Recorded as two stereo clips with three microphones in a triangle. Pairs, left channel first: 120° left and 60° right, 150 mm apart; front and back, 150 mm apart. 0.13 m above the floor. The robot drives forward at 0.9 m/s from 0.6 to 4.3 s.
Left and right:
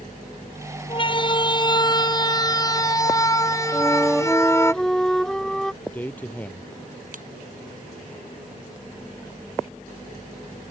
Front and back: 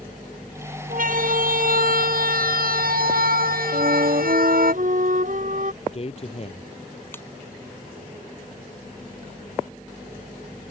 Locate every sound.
0.9 s a siren: 170° left; by 4.7 s 170° right
3.7 s a flute: 145° right; by 5.7 s 155° right
5.8 s a man speaking: 40° left
7.1 s a ringtone: 75° right